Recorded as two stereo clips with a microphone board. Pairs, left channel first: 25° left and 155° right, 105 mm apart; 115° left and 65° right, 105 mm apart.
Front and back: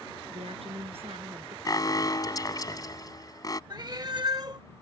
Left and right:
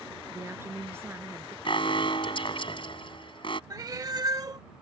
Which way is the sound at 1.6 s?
75° left.